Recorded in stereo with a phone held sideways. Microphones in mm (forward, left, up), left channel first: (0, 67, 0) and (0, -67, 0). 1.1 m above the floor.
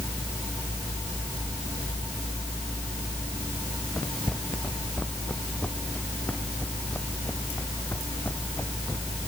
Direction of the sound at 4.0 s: 5° left (ahead or behind).